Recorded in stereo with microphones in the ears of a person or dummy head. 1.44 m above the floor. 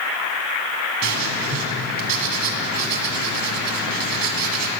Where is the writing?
60° right (ahead or behind), 1.8 m.